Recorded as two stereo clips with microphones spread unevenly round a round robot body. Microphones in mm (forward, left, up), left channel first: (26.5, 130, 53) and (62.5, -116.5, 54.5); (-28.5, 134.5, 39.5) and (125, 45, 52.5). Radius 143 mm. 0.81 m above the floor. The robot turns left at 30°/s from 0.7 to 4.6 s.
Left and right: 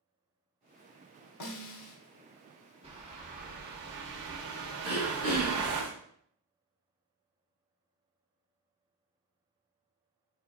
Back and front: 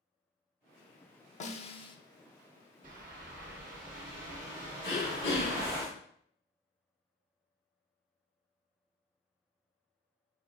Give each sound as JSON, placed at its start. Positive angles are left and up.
{"t": 1.4, "sound": "a snare drum", "azimuth_deg": 100, "distance_m": 0.5}
{"t": 2.8, "sound": "a bird", "azimuth_deg": -20, "distance_m": 0.6}
{"t": 4.8, "sound": "throat clearing", "azimuth_deg": 170, "distance_m": 1.5}